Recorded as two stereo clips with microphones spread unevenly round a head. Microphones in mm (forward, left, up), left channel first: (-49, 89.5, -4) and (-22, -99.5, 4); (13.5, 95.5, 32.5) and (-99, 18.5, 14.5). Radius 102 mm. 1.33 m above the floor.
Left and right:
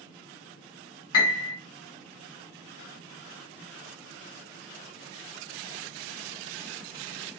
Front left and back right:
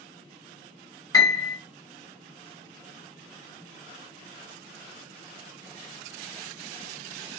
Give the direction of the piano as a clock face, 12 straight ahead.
9 o'clock.